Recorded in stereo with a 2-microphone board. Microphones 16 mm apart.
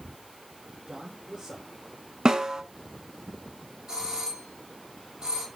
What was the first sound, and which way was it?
A man speaking, 35° right (ahead or behind).